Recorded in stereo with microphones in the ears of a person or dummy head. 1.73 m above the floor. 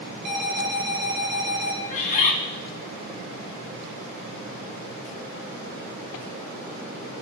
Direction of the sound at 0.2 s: 60° right (ahead or behind).